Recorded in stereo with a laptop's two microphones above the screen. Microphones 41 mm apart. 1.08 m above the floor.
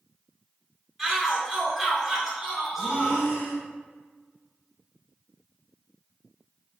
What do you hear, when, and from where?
1.0 s a shout: centre (ahead or behind), 1.9 m
2.8 s breathing: 70° left (ahead or behind), 1.3 m